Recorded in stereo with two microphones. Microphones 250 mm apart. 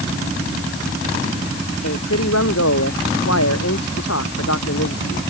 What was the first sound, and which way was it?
A man speaking, 80° left.